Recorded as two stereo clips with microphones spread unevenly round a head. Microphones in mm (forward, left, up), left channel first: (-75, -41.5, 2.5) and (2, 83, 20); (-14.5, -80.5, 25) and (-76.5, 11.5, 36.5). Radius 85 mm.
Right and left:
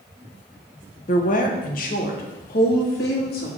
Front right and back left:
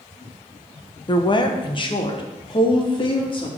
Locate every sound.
1.1 s a woman speaking: 90° right, 1.0 m; by 3.5 s 95° right, 2.5 m